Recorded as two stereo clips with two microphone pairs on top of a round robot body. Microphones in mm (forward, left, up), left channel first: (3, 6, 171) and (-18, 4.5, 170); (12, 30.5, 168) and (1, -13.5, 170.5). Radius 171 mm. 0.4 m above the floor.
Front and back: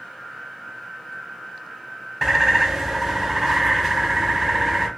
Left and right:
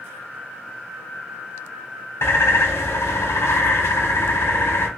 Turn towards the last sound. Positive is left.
turn(degrees=110)